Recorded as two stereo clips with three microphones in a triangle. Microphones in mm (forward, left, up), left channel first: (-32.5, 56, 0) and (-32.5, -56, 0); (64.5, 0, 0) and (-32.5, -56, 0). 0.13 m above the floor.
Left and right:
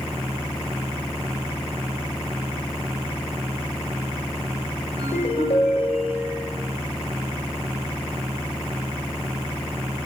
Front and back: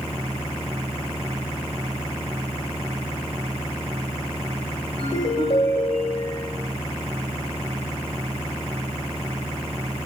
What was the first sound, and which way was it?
A ringtone, 65° left.